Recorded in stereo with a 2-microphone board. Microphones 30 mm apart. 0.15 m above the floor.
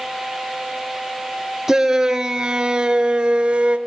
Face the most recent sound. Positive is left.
turn(degrees=-40)  # may be behind; listen again after turning